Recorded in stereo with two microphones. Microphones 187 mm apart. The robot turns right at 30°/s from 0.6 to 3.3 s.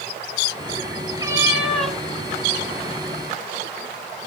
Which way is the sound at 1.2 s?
20° right (ahead or behind).